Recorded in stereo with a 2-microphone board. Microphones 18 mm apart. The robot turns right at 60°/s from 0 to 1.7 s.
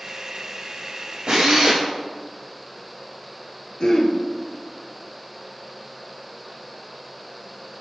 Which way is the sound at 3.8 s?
45° left (ahead or behind).